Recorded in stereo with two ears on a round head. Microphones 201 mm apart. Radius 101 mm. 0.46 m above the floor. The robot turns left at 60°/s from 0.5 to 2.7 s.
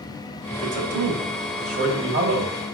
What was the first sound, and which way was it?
A man speaking, 25° right.